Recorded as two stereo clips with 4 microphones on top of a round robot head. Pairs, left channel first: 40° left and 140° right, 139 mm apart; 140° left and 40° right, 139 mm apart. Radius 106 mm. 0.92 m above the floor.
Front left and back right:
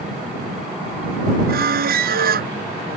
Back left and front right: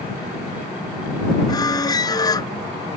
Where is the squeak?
155° right.